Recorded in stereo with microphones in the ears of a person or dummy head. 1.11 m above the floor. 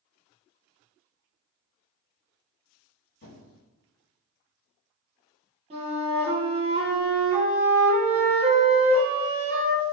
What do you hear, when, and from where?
3.2 s a squeak: 50° left (ahead or behind), 2.0 m
5.7 s a flute: 30° right (ahead or behind), 0.9 m